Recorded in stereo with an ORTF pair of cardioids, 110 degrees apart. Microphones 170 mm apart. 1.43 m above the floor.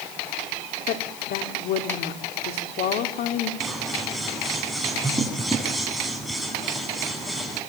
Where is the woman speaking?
70° left, 4.5 m.